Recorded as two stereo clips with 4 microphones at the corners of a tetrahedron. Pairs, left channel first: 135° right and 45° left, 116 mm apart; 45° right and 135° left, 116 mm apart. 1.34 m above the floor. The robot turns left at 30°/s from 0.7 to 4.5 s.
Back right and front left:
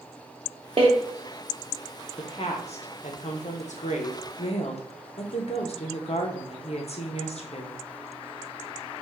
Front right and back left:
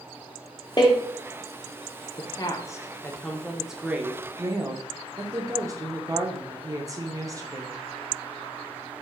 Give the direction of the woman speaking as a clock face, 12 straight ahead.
3 o'clock.